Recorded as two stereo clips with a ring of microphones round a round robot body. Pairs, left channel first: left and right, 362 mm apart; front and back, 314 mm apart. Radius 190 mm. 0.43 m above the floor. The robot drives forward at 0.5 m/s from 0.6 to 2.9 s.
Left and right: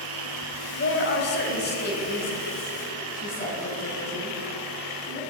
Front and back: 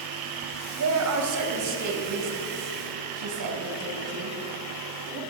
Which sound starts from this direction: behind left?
A woman speaking, at 0.8 s.